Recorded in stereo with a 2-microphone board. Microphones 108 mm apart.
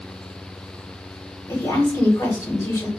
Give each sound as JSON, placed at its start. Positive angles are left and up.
{"t": 1.5, "sound": "a woman speaking", "side_deg": 25, "distance_m": 2.5}